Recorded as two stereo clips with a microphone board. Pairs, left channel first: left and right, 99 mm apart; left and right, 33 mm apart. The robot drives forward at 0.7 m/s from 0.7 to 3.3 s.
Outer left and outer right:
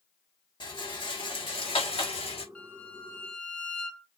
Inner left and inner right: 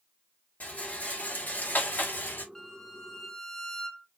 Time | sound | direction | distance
0.6 | a rattle | 50° left (ahead or behind) | 2.5 m
2.5 | a violin | 15° left (ahead or behind) | 0.8 m